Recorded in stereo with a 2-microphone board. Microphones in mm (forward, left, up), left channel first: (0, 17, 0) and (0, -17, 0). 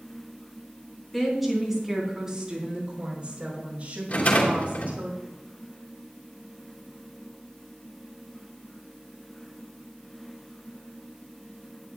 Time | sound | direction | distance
1.1 | a woman speaking | 5° left (ahead or behind) | 3.5 m
4.1 | a rattle | 55° left (ahead or behind) | 2.5 m